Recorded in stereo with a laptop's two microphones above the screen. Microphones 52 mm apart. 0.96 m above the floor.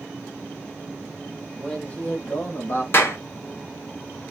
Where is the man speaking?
5° left (ahead or behind), 1.0 m; by 2.8 s 45° left (ahead or behind), 1.2 m.